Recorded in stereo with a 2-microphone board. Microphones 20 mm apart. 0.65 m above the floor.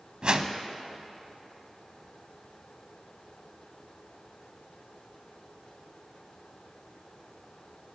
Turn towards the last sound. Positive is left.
turn(degrees=-50)  # may be behind; listen again after turning